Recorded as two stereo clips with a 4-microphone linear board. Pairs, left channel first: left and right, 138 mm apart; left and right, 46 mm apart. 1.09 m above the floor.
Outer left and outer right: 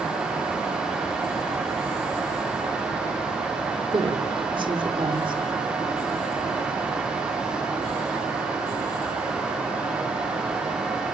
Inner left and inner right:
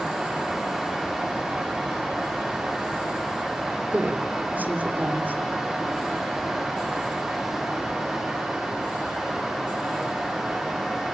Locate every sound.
3.9 s a woman speaking: 35° right (ahead or behind), 3 m